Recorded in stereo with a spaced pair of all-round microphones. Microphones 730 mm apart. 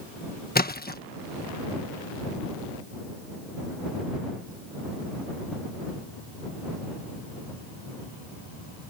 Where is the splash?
15° left (ahead or behind).